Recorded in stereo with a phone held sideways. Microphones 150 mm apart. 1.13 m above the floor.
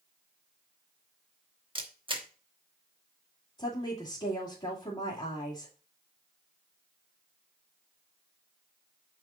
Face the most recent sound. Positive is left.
turn(degrees=40)  # may be behind; listen again after turning